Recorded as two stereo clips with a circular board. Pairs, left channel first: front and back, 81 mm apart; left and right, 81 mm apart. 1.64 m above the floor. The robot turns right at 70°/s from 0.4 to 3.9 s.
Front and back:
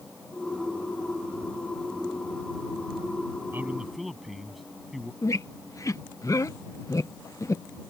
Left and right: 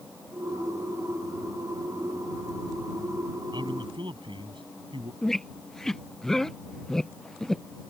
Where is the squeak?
10° left.